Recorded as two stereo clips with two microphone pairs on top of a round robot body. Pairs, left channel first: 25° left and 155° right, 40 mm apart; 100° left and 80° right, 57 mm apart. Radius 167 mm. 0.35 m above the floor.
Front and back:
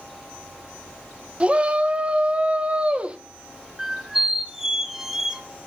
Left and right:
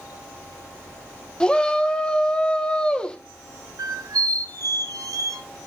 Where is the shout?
160° left, 1.2 m.